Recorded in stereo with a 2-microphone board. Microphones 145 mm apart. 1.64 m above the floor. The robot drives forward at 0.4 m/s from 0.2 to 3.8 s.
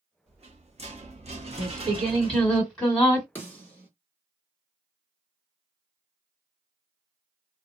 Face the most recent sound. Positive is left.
turn(degrees=15)  # may be behind; listen again after turning